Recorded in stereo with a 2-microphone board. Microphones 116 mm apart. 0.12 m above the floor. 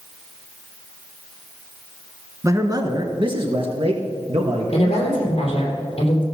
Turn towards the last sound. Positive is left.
turn(degrees=50)  # may be behind; listen again after turning